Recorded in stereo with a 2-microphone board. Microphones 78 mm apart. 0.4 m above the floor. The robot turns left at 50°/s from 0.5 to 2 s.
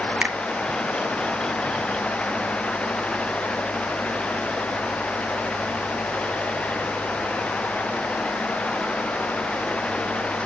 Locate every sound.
0.2 s a finger snap: 20° right (ahead or behind), 0.9 m